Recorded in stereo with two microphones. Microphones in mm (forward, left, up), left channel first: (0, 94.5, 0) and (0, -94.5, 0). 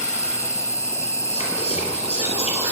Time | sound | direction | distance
0.0 | an insect | 15° left (ahead or behind) | 1.2 m
1.3 | whispering | 35° left (ahead or behind) | 2.5 m